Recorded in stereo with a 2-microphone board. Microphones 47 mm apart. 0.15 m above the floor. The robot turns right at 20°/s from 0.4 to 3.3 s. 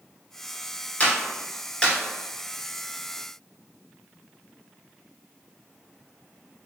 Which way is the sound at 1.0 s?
30° left (ahead or behind).